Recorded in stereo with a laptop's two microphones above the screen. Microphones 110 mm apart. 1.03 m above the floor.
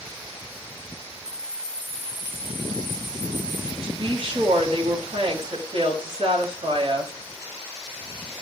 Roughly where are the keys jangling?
Centre.